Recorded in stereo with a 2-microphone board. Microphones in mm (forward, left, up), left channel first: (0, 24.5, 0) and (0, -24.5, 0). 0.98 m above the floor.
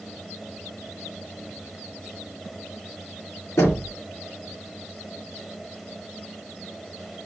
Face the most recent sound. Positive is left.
turn(degrees=80)